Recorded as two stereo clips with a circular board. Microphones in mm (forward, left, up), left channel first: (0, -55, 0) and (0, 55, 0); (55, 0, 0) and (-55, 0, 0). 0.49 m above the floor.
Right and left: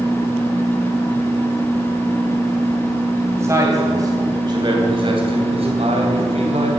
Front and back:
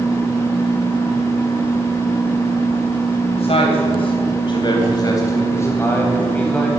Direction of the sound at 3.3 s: 25° left.